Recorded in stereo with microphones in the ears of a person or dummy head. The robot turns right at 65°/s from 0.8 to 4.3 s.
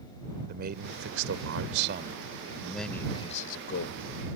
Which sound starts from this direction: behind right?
A man speaking, at 0.5 s.